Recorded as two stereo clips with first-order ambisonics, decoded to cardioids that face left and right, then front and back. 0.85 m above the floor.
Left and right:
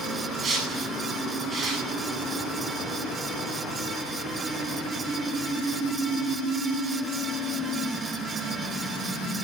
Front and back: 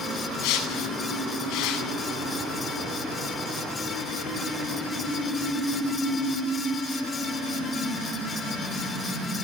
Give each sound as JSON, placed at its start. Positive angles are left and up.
{"t": 0.4, "sound": "a whoosh", "azimuth_deg": -25, "distance_m": 9.0}